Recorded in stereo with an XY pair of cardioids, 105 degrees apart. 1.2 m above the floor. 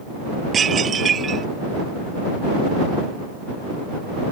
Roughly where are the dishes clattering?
Ahead right.